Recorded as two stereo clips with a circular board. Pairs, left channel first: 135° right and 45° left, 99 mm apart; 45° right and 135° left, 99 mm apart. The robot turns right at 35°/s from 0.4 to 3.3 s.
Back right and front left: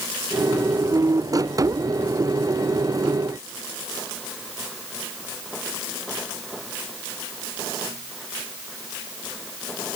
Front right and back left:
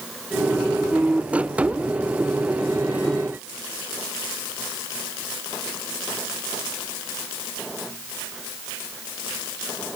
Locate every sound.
Only background noise.